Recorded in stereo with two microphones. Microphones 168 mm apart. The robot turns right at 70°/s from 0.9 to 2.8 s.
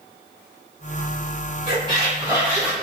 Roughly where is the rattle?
No rattle in this recording.